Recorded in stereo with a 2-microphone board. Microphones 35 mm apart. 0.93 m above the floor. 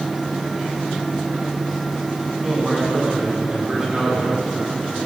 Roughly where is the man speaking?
Right.